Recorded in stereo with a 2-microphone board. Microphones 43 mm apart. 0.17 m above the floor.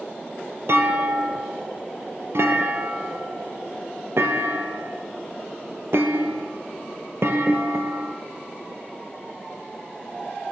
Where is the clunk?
70° right (ahead or behind), 1.3 m.